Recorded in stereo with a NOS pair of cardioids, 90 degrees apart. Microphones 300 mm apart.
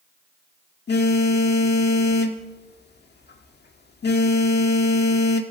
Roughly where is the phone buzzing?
Ahead left.